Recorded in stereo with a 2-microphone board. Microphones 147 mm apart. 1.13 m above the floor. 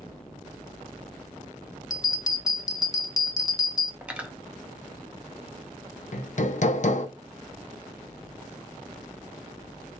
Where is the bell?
25° left (ahead or behind), 0.7 m.